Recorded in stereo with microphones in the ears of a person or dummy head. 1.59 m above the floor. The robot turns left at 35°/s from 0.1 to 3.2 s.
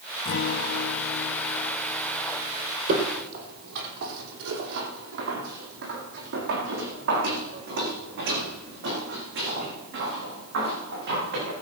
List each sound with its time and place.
0.2 s a guitar: 100° left, 0.7 m; by 2.8 s 10° left, 0.7 m
2.9 s footsteps: 55° right (ahead or behind), 3.5 m; by 11.5 s 65° right (ahead or behind), 9 m